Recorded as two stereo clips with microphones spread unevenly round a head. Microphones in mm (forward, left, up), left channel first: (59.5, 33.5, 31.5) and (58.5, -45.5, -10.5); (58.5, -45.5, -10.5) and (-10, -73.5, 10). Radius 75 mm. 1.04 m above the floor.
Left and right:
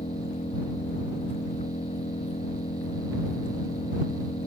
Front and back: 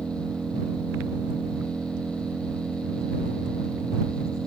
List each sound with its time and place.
0.0 s an engine running: 120° left